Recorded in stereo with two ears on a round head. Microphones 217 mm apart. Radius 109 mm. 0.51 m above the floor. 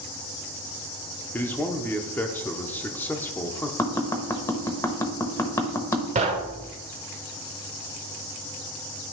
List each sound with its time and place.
1.3 s a man speaking: 5° left (ahead or behind), 0.8 m
3.8 s tapping: 10° left (ahead or behind), 0.9 m
6.2 s knocking: 25° right (ahead or behind), 1.1 m